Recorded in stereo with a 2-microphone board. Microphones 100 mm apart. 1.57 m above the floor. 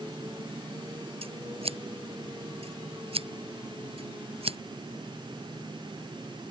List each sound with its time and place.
1.2 s scissors: 75° right (ahead or behind)